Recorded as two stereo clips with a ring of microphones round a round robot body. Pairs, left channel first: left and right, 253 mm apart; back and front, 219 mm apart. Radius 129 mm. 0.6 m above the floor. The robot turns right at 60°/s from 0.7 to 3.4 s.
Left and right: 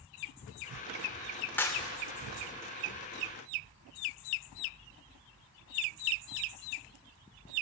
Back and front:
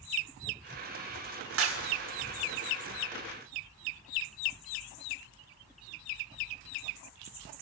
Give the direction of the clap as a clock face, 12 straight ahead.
12 o'clock.